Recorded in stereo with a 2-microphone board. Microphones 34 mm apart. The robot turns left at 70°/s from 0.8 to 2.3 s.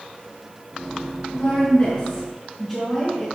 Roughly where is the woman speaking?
Left.